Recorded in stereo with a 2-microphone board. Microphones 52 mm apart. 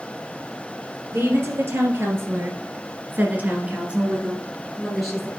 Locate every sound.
1.1 s a woman speaking: 50° right (ahead or behind), 3 m; by 5.3 s 5° left (ahead or behind), 2 m